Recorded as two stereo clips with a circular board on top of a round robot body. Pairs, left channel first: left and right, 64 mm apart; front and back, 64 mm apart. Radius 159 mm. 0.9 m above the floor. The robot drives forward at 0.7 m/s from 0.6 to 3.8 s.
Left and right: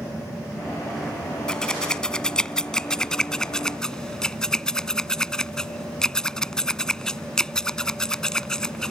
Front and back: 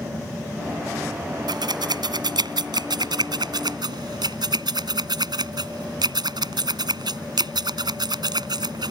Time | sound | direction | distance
1.5 | scissors | 170° left | ?